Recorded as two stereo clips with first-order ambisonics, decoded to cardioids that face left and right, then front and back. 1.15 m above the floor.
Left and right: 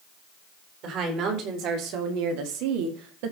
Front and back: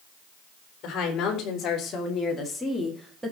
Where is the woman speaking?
45° right, 4 m; by 3.3 s 105° right, 2.0 m.